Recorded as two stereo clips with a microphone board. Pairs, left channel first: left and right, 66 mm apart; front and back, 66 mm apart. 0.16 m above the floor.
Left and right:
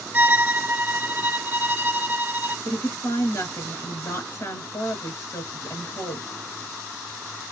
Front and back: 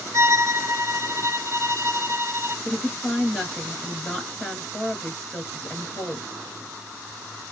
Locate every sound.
0.1 s a violin: 145° right, 0.6 m
2.6 s a woman speaking: 80° left, 2 m